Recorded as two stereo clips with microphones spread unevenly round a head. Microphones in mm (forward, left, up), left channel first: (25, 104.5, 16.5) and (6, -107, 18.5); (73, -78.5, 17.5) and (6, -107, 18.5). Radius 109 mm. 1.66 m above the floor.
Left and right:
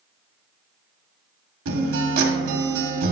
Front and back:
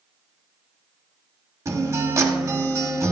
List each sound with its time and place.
1.6 s a guitar: 115° right, 1.8 m